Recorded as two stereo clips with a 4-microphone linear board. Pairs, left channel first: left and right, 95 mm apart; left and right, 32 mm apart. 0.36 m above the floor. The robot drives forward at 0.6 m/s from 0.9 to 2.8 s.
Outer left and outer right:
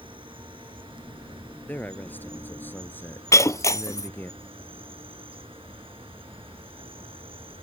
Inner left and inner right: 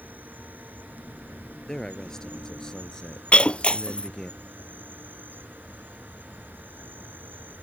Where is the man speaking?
15° left (ahead or behind); by 4.3 s 20° left (ahead or behind).